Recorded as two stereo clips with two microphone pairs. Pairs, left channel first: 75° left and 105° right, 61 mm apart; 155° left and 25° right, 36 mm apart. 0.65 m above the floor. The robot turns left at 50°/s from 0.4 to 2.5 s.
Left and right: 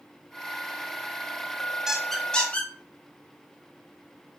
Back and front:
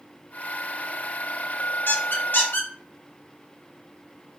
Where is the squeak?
170° left, 0.8 m; by 2.7 s 140° left, 0.8 m.